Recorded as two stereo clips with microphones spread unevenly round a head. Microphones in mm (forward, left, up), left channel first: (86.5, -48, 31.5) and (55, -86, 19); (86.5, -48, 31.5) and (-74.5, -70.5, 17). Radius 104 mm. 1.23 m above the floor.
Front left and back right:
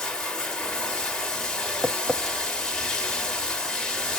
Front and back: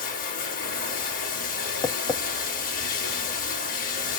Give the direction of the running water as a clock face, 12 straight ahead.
1 o'clock.